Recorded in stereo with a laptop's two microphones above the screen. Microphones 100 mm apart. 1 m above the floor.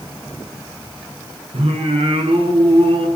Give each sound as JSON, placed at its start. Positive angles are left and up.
{"t": 1.5, "sound": "singing", "side_deg": -65, "distance_m": 8.5}